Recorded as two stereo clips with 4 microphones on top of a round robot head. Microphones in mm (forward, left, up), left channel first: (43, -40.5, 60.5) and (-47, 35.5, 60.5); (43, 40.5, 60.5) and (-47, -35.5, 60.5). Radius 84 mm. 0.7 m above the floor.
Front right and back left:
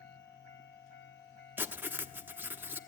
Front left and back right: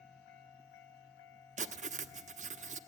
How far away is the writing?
About 1.2 m.